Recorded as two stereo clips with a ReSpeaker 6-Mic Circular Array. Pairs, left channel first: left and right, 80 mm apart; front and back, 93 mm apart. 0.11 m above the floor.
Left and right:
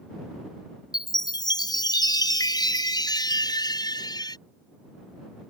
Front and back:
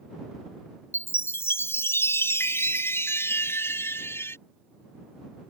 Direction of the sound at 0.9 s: 65° left.